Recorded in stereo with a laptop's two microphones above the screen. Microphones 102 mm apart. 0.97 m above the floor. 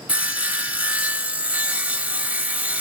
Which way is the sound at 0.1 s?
15° right (ahead or behind).